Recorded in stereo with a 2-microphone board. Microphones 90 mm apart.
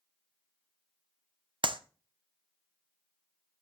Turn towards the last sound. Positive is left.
turn(degrees=-60)  # may be behind; listen again after turning